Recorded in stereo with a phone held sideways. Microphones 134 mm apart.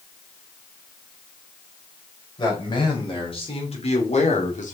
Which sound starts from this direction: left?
A man speaking, at 2.4 s.